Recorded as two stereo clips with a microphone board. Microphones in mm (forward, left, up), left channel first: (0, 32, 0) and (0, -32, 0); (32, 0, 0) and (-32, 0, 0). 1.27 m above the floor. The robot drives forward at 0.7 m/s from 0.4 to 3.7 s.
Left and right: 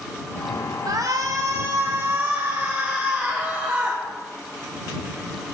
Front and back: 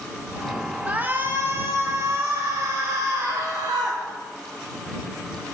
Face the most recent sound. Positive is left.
turn(degrees=-155)